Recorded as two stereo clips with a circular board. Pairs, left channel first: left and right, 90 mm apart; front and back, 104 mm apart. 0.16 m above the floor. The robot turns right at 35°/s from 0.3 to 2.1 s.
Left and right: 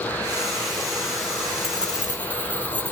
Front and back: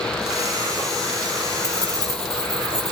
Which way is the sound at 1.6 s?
175° right.